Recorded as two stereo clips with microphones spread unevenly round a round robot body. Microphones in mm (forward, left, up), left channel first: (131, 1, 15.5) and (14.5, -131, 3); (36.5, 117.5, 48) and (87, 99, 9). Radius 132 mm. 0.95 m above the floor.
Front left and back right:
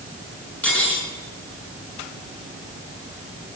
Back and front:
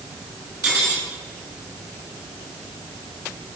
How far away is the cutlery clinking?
About 6.5 m.